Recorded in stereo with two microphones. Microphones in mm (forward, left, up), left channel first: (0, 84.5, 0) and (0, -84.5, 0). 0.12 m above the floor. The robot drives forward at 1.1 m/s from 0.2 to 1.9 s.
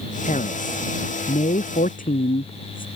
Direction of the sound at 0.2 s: 50° left (ahead or behind).